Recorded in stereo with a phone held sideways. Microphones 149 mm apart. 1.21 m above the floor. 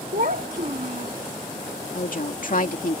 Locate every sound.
0.1 s a child speaking: 65° right (ahead or behind)
1.9 s a woman speaking: 65° left (ahead or behind)